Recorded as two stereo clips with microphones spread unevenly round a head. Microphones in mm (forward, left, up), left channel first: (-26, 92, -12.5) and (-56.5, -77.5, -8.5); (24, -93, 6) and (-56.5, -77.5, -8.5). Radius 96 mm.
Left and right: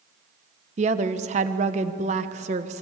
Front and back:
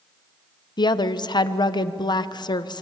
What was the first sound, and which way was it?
A woman speaking, 40° right.